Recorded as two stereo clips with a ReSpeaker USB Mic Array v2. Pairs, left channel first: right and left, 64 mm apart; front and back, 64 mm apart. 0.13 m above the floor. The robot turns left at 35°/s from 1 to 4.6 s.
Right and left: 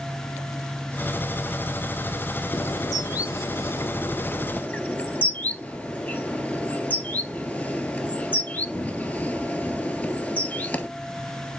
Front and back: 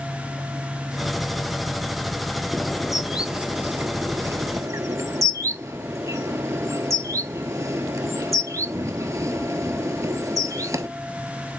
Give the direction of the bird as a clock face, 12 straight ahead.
3 o'clock.